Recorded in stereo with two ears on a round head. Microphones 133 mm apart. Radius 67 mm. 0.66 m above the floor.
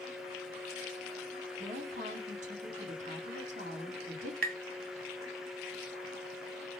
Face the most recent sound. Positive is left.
turn(degrees=-65)  # may be behind; listen again after turning